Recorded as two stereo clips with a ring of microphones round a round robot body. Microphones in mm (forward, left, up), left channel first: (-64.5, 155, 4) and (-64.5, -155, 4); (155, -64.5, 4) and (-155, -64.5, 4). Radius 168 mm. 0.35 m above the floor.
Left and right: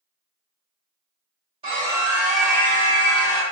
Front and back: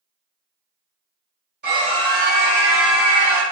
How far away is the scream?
About 1.7 m.